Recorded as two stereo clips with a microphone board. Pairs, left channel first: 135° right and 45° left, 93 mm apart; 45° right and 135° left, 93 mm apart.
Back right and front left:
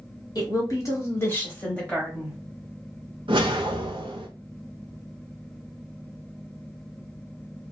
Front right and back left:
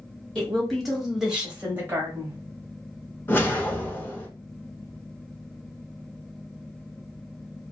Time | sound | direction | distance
0.3 | a woman speaking | 120° right | 1.2 m
3.3 | a whoosh | 20° left | 0.6 m